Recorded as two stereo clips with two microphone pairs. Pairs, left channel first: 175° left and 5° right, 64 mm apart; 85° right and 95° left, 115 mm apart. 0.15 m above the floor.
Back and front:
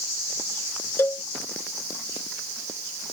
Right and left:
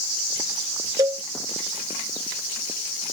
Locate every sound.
1.0 s a cowbell: 140° left